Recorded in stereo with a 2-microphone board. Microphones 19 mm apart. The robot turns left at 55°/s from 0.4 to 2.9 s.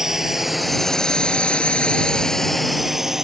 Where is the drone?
20° right (ahead or behind).